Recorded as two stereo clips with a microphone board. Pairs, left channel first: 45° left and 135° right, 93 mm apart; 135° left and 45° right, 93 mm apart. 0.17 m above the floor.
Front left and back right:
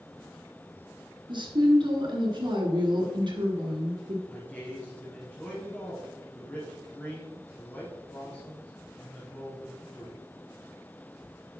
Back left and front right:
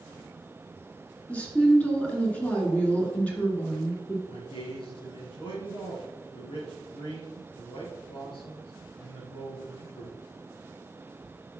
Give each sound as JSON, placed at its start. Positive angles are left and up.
{"t": 1.3, "sound": "a woman speaking", "azimuth_deg": -150, "distance_m": 2.5}
{"t": 4.3, "sound": "a man speaking", "azimuth_deg": 120, "distance_m": 2.5}